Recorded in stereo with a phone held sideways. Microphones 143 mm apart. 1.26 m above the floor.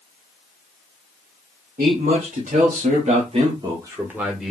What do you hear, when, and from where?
1.8 s a man speaking: 75° right (ahead or behind), 1.3 m; by 4.5 s centre (ahead or behind), 1.0 m